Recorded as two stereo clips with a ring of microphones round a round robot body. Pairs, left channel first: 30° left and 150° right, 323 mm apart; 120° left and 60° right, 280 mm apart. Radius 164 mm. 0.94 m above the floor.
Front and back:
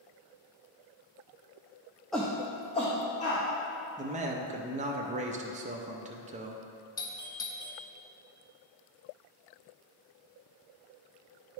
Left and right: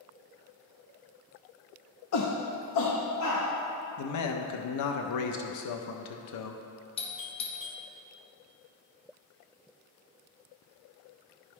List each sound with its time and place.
2.1 s a shout: 120° left, 0.6 m; by 3.4 s 100° left, 1.6 m
4.0 s a man speaking: 140° left, 0.5 m
7.0 s a doorbell: 90° left, 0.7 m